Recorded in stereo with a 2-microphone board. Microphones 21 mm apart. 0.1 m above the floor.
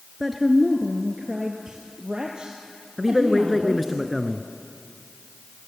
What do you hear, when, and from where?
0.2 s a woman speaking: centre (ahead or behind), 1.2 m; by 4.0 s 40° right (ahead or behind), 3 m
3.0 s a man speaking: centre (ahead or behind), 1.1 m